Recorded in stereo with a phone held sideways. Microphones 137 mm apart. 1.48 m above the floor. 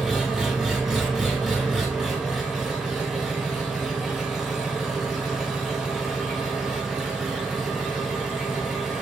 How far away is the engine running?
About 0.9 m.